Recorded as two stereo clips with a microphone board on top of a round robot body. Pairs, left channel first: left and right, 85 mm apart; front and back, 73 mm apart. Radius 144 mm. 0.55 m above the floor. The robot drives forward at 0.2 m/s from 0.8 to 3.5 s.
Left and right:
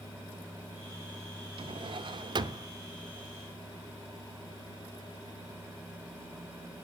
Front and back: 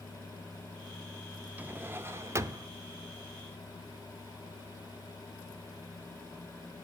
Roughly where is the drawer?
Right.